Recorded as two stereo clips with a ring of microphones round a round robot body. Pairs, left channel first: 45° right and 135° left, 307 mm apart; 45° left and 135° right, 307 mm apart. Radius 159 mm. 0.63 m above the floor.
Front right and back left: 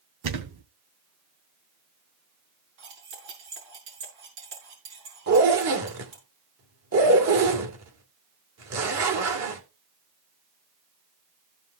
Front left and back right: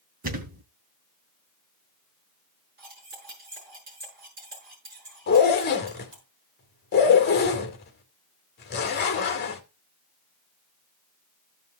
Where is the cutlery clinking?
165° left, 6.5 m.